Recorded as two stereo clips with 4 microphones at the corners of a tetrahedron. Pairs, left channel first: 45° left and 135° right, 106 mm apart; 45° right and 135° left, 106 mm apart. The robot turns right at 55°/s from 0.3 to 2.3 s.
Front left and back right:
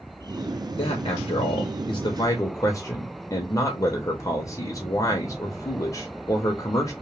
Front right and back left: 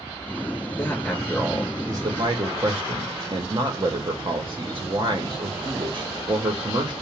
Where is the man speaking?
15° left, 0.7 m; by 6.9 s 100° left, 0.7 m.